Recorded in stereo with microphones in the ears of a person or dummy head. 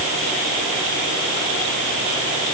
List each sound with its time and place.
Only background noise.